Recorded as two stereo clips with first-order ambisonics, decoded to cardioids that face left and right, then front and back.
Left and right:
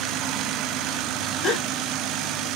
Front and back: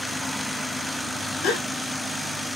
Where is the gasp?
20° left, 1.2 m.